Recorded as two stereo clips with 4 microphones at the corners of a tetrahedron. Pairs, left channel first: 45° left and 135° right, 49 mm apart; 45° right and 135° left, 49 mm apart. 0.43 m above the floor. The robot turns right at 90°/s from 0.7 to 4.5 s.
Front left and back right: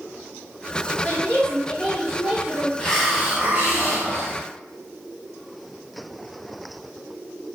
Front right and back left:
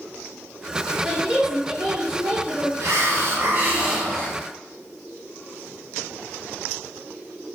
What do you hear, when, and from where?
1.0 s a woman speaking: 60° left, 1.3 m; by 2.7 s 150° right, 1.3 m
2.8 s a hiss: 115° left, 0.7 m; by 4.4 s 105° right, 0.7 m